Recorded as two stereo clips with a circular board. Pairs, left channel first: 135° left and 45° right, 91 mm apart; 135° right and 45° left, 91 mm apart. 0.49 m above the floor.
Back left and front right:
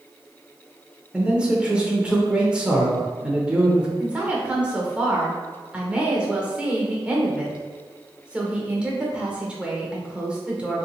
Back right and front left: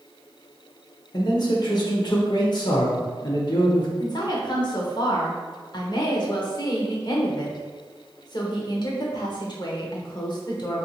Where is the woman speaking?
120° right, 1.1 m.